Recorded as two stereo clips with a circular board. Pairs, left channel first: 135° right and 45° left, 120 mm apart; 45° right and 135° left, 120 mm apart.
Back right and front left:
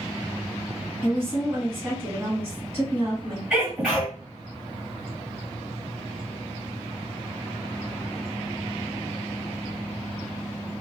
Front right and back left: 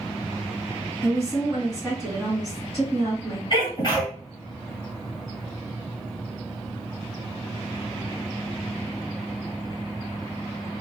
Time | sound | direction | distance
1.0 | a woman speaking | 95° left | 1.8 m
3.5 | a sneeze | 30° right | 1.8 m